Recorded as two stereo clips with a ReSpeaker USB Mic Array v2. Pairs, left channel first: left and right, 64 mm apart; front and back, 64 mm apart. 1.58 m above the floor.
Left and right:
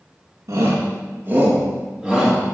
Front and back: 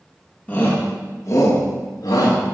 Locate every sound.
0.5 s a shout: 70° right, 1.6 m; by 2.4 s 5° left, 2 m